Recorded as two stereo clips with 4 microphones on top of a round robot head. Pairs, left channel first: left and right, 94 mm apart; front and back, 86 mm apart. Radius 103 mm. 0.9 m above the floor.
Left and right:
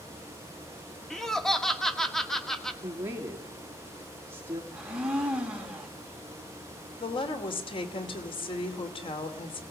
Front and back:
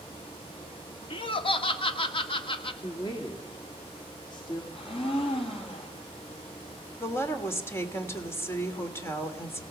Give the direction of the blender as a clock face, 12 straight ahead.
12 o'clock.